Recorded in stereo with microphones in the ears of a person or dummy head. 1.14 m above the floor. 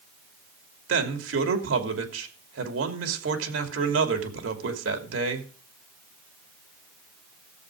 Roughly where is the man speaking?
Right.